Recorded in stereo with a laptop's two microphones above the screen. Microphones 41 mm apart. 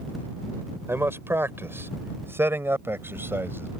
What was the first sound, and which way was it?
A man speaking, 80° right.